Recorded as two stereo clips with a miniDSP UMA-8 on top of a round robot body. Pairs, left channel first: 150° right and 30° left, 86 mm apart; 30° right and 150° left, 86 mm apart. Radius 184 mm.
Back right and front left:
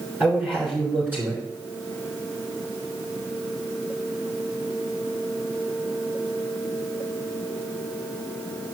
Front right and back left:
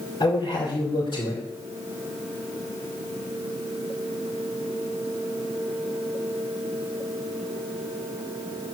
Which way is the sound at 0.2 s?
40° right.